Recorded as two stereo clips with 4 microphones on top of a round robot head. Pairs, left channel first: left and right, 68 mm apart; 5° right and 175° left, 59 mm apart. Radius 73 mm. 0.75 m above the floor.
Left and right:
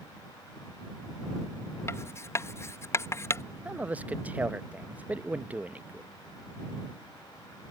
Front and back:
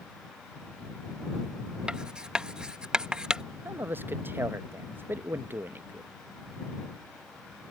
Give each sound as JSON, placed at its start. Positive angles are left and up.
{"t": 1.9, "sound": "writing", "azimuth_deg": 105}
{"t": 3.6, "sound": "a man speaking", "azimuth_deg": -150}